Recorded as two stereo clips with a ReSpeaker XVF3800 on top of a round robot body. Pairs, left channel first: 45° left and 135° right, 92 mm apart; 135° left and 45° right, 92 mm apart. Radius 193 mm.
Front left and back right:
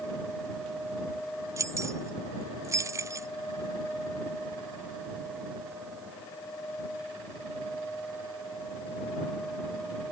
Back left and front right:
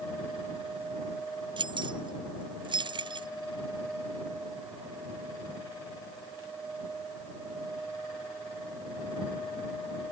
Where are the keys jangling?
80° right.